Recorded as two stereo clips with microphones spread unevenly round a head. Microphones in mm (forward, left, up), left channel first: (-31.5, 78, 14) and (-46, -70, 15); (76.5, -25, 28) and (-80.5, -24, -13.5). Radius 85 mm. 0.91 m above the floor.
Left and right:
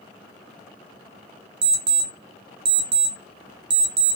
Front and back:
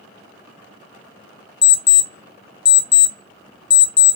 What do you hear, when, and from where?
1.6 s an alarm clock: 45° right, 0.7 m